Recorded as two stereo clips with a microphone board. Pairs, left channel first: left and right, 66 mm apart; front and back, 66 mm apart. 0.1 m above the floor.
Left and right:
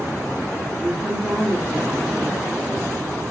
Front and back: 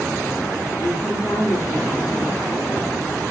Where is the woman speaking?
10° right, 6 m.